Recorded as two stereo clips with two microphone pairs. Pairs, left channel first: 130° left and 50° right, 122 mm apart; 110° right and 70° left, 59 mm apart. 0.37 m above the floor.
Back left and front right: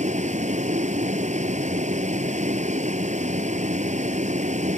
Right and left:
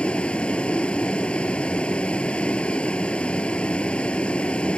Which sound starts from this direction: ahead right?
A vehicle, at 0.0 s.